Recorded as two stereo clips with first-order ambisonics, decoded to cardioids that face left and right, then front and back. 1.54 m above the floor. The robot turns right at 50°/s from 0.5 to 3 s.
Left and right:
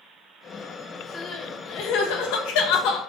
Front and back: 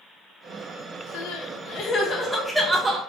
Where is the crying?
25° left, 1.5 m; by 3.0 s 115° left, 1.5 m.